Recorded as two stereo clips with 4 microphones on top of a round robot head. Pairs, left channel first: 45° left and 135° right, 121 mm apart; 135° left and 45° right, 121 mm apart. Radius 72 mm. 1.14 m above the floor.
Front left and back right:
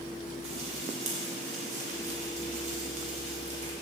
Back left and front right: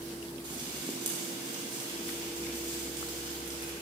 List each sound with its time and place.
0.4 s frying: 100° right, 3.5 m